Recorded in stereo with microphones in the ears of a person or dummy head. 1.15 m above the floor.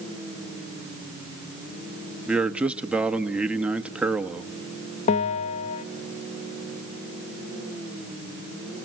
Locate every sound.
2.3 s a man speaking: centre (ahead or behind), 1.4 m
5.1 s a bell: 40° left (ahead or behind), 0.8 m